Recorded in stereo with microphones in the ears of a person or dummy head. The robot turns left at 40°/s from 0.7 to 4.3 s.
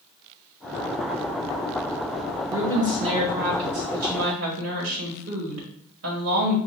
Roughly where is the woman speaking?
Ahead.